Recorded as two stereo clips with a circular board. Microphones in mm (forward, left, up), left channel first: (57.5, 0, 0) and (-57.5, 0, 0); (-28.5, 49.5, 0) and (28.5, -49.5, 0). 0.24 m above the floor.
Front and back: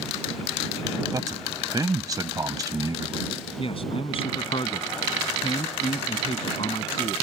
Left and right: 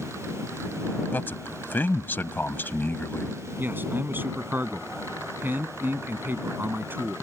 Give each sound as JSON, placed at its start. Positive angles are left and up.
{"t": 1.1, "sound": "a man speaking", "azimuth_deg": 175}
{"t": 3.6, "sound": "a man speaking", "azimuth_deg": 10}